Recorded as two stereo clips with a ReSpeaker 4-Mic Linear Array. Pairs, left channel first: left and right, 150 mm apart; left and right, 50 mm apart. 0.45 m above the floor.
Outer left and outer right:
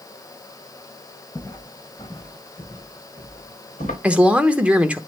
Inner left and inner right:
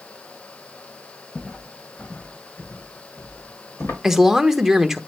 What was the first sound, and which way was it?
Footsteps, 20° left (ahead or behind).